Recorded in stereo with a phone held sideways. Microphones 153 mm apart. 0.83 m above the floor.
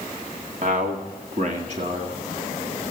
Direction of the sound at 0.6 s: 55° right (ahead or behind).